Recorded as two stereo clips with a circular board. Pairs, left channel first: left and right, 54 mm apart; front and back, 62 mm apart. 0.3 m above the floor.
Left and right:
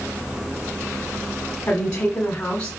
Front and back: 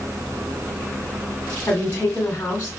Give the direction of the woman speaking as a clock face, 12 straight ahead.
10 o'clock.